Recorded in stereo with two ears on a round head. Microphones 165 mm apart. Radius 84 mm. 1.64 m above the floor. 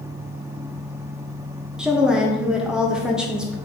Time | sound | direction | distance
1.8 | a woman speaking | 5° right (ahead or behind) | 0.9 m